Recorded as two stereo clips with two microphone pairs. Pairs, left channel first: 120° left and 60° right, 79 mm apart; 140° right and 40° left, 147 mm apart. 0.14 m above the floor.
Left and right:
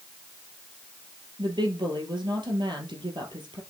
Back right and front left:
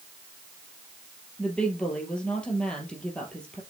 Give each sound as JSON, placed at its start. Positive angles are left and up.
{"t": 1.4, "sound": "a woman speaking", "azimuth_deg": -55, "distance_m": 3.0}